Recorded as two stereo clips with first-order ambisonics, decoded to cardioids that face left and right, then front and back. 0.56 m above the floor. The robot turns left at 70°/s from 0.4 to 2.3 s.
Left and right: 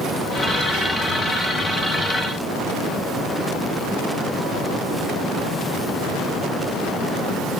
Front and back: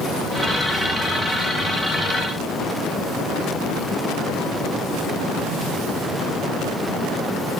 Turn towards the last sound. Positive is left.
No sound to turn to.